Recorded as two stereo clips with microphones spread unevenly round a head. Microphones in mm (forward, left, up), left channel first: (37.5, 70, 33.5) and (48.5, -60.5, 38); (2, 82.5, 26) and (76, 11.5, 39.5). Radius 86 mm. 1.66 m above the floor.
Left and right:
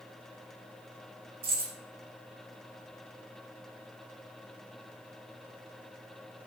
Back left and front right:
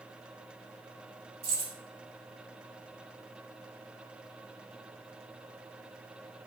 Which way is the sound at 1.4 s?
75° right.